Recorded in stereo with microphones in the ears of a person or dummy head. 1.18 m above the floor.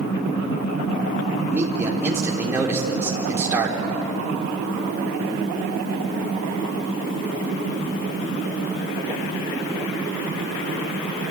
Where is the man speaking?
10° right (ahead or behind), 3 m.